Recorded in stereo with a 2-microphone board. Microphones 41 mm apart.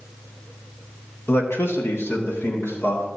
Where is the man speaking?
75° left (ahead or behind), 1.2 m; by 3.1 s 80° left, 2.5 m.